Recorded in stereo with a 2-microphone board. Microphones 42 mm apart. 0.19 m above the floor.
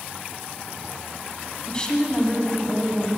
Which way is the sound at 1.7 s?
20° left (ahead or behind).